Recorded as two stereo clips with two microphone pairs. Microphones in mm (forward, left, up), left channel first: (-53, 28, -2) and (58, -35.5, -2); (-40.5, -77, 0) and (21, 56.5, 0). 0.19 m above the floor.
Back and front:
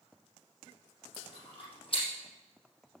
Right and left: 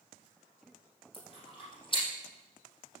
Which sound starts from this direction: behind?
Chewing, at 1.1 s.